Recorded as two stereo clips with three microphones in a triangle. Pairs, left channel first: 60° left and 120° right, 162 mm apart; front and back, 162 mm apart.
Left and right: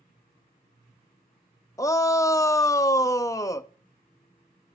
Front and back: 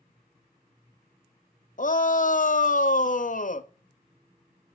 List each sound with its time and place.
1.8 s a shout: 10° right, 0.7 m